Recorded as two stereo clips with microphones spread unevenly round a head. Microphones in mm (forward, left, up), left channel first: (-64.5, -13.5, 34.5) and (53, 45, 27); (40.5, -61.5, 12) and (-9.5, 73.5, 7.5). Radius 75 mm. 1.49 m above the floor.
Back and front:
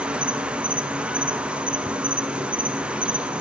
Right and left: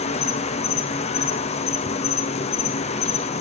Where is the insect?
50° right, 1.1 m.